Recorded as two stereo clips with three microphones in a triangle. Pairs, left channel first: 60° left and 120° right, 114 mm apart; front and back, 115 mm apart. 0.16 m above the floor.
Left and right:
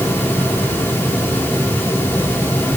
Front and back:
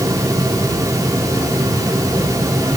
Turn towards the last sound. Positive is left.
No sound to turn to.